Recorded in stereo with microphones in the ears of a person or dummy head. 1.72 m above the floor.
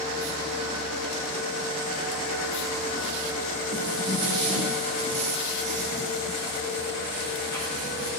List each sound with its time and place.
3.7 s footsteps: 55° right (ahead or behind), 3.5 m; by 8.1 s 75° right (ahead or behind), 8.5 m